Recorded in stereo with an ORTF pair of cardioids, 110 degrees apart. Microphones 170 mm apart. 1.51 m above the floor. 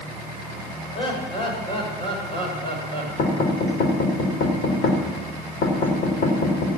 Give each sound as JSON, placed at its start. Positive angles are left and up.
{"t": 0.9, "sound": "laughter", "azimuth_deg": 30, "distance_m": 7.0}
{"t": 3.2, "sound": "knocking", "azimuth_deg": 65, "distance_m": 4.0}